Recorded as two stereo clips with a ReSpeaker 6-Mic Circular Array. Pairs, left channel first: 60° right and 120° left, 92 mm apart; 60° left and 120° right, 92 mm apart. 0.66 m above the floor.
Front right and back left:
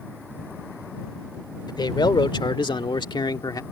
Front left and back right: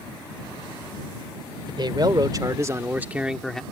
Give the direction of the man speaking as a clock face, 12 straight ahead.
3 o'clock.